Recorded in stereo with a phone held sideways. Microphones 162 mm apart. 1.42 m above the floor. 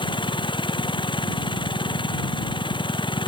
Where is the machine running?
30° left (ahead or behind).